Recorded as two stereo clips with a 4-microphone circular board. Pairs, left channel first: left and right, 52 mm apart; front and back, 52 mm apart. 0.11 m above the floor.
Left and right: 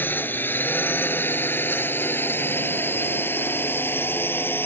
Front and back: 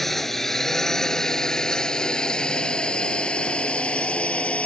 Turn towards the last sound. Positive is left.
turn(degrees=60)